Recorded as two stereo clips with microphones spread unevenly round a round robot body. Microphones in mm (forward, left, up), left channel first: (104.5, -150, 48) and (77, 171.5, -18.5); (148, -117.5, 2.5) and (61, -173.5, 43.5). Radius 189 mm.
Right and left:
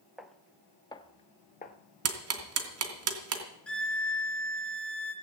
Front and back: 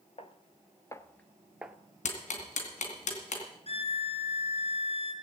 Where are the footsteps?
5° right, 1.0 m; by 1.8 s 115° right, 1.0 m.